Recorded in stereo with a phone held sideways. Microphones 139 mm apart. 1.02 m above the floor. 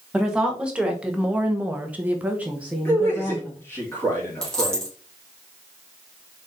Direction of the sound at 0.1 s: 5° right (ahead or behind).